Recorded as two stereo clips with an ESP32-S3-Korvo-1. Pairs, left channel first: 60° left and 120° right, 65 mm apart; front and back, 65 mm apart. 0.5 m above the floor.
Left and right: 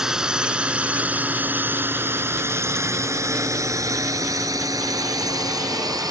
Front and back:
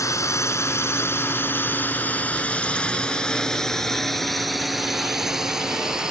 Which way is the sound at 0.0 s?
40° right.